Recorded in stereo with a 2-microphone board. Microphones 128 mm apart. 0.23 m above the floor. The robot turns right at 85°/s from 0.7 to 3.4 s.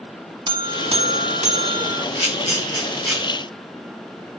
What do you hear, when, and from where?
0.5 s a buzzer: 135° right, 0.6 m; by 2.0 s 25° right, 0.6 m
2.1 s a camera shutter: 80° left, 4 m; by 3.2 s 10° right (ahead or behind), 4 m